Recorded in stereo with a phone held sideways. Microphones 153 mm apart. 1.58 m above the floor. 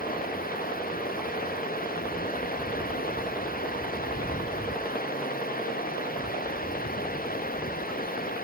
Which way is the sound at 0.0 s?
70° left (ahead or behind).